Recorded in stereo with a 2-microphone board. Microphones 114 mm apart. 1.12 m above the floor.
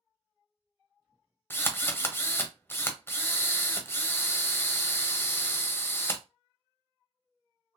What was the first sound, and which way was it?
A drill, 20° left (ahead or behind).